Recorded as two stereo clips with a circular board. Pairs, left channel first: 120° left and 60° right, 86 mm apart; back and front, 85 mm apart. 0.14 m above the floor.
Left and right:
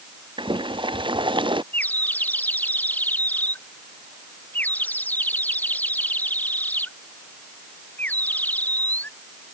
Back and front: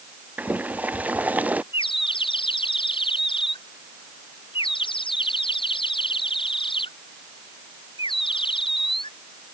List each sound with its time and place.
0.4 s boiling: 70° right
1.7 s a bird: 170° right